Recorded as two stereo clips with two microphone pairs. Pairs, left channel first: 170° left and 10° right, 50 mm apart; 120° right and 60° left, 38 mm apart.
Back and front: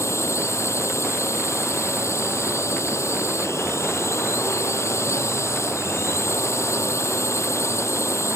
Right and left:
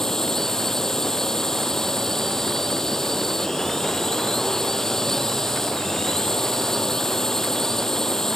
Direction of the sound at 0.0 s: 160° left.